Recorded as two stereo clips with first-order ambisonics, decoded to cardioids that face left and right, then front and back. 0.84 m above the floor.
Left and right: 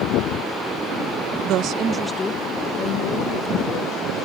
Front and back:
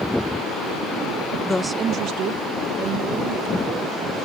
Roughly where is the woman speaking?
Right.